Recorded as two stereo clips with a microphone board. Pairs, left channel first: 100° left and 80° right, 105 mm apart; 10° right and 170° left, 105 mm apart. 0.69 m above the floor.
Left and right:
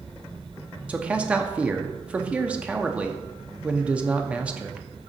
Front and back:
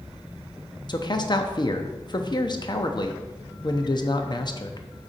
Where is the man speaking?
5° right, 0.7 m.